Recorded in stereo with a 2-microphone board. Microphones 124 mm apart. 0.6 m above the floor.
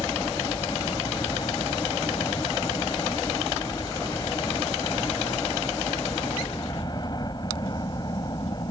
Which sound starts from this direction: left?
A helicopter, at 0.0 s.